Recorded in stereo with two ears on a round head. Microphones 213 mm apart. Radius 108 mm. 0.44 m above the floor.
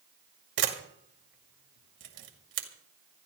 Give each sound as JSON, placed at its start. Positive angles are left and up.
{"t": 0.6, "sound": "a camera shutter", "side_deg": -50, "distance_m": 2.0}